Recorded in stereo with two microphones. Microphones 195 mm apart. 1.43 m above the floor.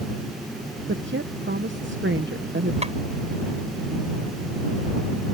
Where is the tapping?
35° right (ahead or behind).